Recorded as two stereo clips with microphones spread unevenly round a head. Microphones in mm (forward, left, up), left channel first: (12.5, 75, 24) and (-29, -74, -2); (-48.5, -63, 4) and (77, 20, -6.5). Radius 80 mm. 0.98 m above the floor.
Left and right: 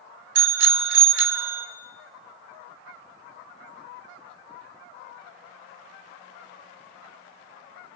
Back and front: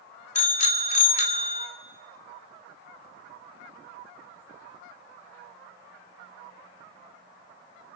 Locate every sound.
0.3 s a bicycle bell: 105° right, 2 m